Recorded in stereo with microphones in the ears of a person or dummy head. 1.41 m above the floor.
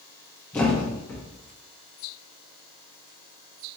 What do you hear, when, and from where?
0.5 s a thud: 5° left (ahead or behind), 0.9 m